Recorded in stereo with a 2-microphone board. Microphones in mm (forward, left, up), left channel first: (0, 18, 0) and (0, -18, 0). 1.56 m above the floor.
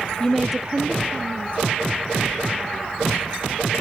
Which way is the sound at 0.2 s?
20° left (ahead or behind).